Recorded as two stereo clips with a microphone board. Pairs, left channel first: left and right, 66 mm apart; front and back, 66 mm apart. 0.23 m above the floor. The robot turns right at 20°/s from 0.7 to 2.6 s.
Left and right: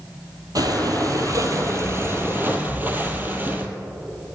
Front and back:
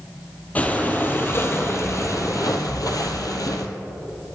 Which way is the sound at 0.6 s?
65° right.